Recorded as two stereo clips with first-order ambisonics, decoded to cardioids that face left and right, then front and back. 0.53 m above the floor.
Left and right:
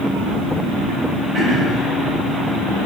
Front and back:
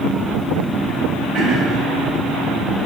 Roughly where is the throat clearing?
Behind right.